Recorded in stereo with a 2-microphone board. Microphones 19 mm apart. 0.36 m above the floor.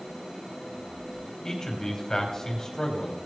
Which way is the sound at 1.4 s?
30° left (ahead or behind).